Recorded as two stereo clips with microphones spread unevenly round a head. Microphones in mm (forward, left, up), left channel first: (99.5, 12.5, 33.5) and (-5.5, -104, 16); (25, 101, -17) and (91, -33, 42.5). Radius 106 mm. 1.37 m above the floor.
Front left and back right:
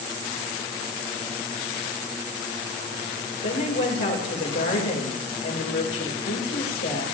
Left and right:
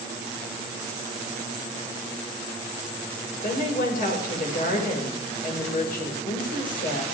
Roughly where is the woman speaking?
Left.